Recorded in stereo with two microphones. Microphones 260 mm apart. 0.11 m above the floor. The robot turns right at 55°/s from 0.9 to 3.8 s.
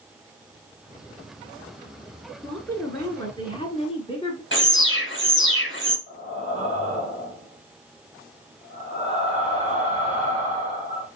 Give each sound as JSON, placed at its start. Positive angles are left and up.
{"t": 2.4, "sound": "a woman speaking", "side_deg": 0, "distance_m": 1.2}
{"t": 4.5, "sound": "an alarm", "side_deg": 45, "distance_m": 1.5}
{"t": 6.1, "sound": "breathing", "side_deg": -25, "distance_m": 1.8}